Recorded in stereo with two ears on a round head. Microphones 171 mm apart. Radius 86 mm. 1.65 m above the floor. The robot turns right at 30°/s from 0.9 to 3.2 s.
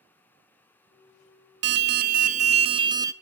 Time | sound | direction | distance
1.6 | an alarm | 60° right | 0.6 m